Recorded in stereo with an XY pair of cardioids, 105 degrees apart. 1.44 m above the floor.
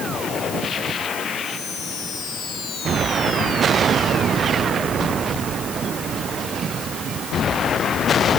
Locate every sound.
Only background noise.